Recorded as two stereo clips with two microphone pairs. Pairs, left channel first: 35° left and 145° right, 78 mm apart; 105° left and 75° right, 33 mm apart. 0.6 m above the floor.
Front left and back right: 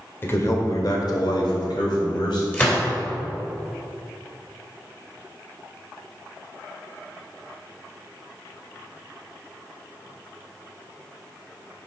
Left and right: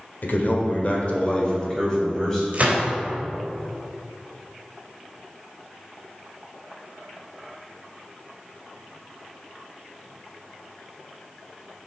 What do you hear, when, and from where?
0.2 s a man speaking: 95° left, 1.9 m; by 2.4 s 25° left, 3.5 m
2.5 s a gunshot: 30° right, 3 m